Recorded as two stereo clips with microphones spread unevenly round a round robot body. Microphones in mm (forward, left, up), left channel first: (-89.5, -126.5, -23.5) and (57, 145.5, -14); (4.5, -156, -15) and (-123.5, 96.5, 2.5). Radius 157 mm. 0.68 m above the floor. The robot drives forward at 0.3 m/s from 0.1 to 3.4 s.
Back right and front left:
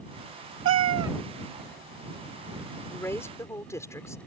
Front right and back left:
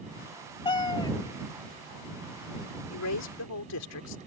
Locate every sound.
0.7 s a cat meowing: 15° left
2.9 s a woman speaking: 35° right; by 4.2 s 40° right